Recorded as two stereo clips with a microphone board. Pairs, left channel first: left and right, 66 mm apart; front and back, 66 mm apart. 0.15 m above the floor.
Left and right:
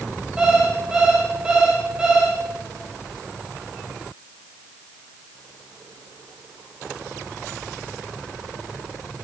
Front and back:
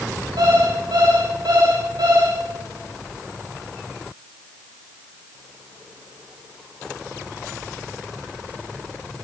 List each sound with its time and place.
0.4 s an alarm clock: 170° right, 7 m